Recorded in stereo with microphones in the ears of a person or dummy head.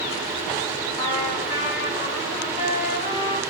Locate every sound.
1.0 s a trumpet: 25° left (ahead or behind), 1.4 m